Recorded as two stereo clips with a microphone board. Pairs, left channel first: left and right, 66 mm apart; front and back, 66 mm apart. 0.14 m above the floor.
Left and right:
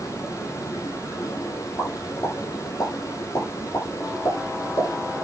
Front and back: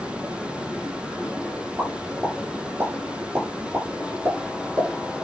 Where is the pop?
120° left, 5 m.